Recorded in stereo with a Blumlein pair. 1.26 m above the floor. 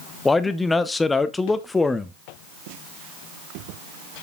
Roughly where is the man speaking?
Ahead.